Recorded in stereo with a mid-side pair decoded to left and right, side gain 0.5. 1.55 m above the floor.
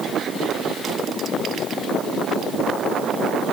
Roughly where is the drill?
I don't hear a drill.